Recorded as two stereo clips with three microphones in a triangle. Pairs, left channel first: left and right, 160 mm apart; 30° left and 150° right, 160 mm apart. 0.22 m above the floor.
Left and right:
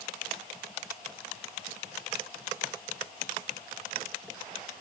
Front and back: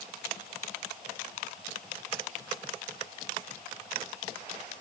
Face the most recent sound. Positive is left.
No sound to turn to.